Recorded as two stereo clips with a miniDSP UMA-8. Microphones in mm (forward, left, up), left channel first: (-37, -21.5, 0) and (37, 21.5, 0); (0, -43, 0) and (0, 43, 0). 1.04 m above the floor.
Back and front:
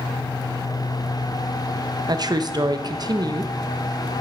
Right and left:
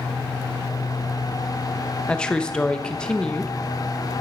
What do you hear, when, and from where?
2.1 s a woman speaking: 10° right, 0.5 m